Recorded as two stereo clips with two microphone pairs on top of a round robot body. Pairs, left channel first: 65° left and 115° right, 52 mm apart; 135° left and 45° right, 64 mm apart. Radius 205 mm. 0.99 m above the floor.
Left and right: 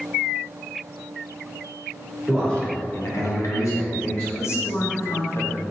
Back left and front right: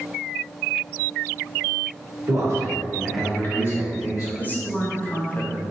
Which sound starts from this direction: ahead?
A man speaking, at 2.3 s.